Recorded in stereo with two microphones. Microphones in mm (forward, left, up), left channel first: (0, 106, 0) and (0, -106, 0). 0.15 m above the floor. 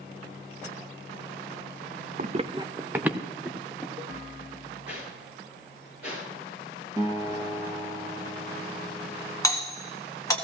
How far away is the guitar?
About 3 m.